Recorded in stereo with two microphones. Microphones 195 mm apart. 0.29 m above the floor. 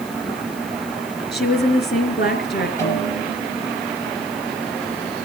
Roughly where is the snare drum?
Centre.